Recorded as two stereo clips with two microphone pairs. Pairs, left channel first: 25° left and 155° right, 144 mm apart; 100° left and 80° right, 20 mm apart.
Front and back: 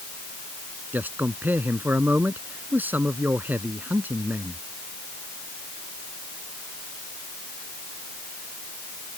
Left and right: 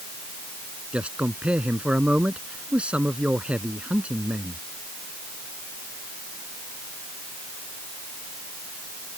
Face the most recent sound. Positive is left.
turn(degrees=-80)